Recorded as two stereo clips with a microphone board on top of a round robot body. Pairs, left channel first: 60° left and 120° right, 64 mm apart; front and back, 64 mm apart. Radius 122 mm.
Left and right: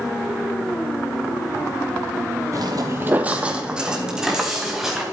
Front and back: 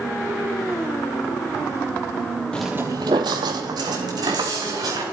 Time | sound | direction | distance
2.5 | footsteps | 70° right | 0.6 m